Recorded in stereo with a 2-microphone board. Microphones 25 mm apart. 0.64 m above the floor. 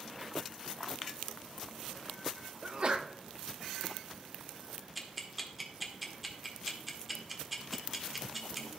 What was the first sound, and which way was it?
A sneeze, 40° right (ahead or behind).